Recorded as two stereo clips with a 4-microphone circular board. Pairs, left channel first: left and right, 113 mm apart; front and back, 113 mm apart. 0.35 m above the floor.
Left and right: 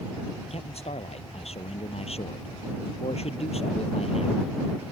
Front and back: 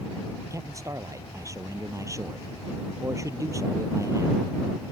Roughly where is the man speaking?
Behind left.